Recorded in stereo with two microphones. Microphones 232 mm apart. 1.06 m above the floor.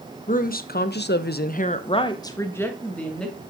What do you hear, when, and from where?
0.3 s a woman speaking: 35° left (ahead or behind), 1.1 m; by 3.4 s centre (ahead or behind), 1.9 m